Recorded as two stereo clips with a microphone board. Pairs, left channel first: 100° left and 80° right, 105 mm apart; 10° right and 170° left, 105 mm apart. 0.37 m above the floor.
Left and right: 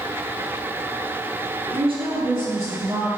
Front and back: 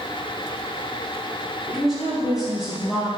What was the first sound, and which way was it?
A woman speaking, 105° right.